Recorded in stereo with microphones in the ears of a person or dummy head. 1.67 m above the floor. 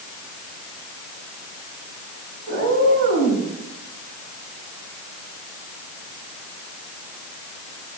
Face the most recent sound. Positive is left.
turn(degrees=35)  # may be behind; listen again after turning